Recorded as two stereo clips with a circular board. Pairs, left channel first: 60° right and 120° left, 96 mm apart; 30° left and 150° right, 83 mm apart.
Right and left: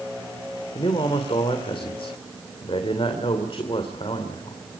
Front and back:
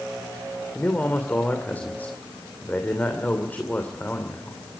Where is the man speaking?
40° right, 2.5 m.